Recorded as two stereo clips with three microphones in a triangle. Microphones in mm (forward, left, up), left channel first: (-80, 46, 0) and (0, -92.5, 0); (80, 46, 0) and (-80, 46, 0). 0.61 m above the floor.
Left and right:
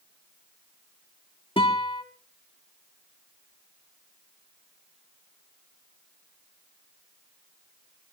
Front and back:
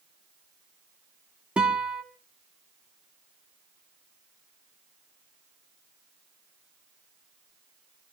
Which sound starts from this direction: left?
A guitar, at 1.6 s.